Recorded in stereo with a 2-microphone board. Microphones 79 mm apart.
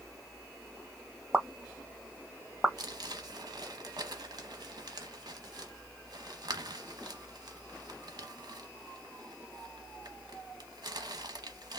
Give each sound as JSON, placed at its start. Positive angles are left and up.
{"t": 1.3, "sound": "a pop", "side_deg": -15, "distance_m": 0.7}
{"t": 2.8, "sound": "crumpling", "side_deg": -60, "distance_m": 0.8}